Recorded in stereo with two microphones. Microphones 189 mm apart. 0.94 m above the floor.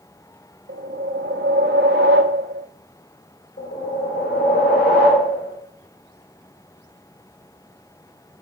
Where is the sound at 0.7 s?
70° right (ahead or behind), 0.5 m.